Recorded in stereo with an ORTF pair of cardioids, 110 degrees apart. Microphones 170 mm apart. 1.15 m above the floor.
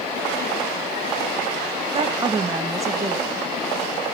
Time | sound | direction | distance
1.9 | a woman speaking | 35° right | 1.1 m